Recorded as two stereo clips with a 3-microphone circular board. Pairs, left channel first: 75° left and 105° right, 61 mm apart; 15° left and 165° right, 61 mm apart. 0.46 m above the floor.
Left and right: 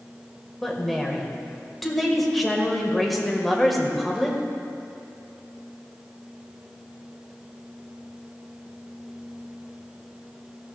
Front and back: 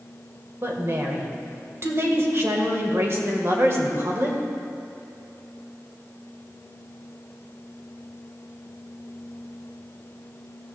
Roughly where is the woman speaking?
Behind.